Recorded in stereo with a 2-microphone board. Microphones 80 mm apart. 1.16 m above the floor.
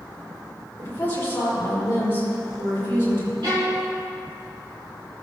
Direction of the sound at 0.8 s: 30° left (ahead or behind).